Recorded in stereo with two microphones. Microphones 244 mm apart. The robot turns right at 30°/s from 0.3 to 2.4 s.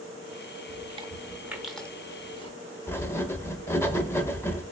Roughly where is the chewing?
Right.